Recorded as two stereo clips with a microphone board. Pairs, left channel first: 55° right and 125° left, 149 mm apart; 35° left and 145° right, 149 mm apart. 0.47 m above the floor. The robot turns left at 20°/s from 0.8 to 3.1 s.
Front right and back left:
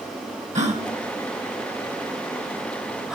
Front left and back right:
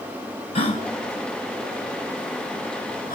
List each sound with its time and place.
0.6 s a gasp: 85° left, 3 m; by 3.1 s 40° left, 3 m